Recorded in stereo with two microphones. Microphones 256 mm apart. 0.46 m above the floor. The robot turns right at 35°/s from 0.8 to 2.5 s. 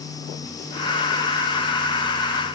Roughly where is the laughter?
No laughter in this recording.